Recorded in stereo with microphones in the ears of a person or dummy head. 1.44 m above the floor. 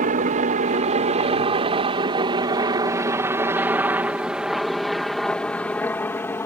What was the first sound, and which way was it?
A helicopter, 40° right (ahead or behind).